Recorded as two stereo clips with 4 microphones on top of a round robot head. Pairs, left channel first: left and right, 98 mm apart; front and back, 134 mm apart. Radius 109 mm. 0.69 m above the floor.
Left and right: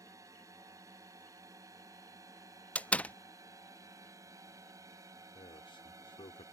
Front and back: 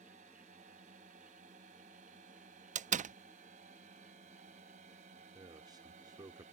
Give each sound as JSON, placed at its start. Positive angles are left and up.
{"t": 0.0, "sound": "a drone", "azimuth_deg": -145}
{"t": 2.8, "sound": "a door slam", "azimuth_deg": 165}
{"t": 5.3, "sound": "a man speaking", "azimuth_deg": 120}